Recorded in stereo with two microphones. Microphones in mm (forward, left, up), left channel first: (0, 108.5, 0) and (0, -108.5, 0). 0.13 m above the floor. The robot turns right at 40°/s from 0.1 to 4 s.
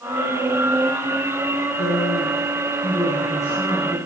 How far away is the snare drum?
No snare drum in this recording.